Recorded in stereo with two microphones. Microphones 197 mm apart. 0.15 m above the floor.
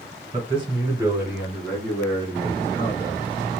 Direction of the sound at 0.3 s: 35° right (ahead or behind).